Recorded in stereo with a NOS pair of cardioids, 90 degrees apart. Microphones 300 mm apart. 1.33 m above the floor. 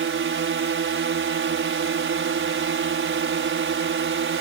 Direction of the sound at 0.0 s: 45° right.